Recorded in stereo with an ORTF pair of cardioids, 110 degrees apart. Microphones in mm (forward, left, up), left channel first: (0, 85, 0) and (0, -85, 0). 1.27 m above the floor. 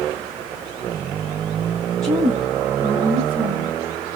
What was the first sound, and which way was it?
A woman speaking, 20° right.